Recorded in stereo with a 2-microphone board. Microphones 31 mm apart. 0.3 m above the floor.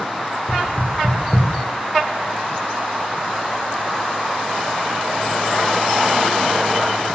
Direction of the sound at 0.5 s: 85° left.